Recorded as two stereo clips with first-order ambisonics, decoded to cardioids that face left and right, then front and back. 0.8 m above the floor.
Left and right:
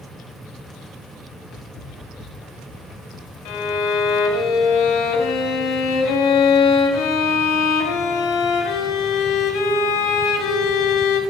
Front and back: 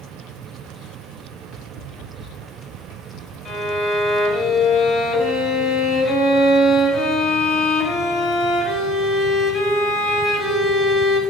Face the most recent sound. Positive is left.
turn(degrees=85)